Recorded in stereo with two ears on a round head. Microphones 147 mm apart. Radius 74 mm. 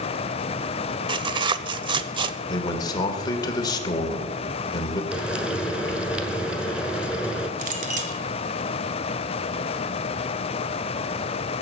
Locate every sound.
1.1 s tearing paper: 30° right (ahead or behind), 0.7 m
2.5 s a man speaking: 25° left (ahead or behind), 1.9 m
5.1 s frying: 5° right (ahead or behind), 1.2 m
7.6 s a clink: 50° right (ahead or behind), 1.8 m